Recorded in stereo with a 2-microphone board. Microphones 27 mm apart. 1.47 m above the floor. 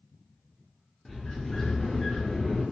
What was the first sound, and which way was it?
A sliding door, 20° left (ahead or behind).